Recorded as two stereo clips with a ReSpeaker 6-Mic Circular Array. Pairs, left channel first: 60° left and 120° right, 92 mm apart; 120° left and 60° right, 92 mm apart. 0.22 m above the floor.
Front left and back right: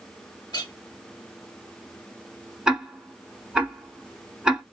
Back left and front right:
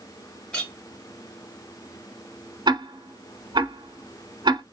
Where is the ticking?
40° right, 0.8 m.